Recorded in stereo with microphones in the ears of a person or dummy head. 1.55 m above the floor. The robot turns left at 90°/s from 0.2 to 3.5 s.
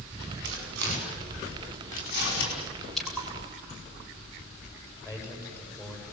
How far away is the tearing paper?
About 5 m.